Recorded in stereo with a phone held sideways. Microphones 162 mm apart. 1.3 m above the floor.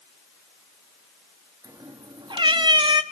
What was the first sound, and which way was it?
A cat meowing, 25° right (ahead or behind).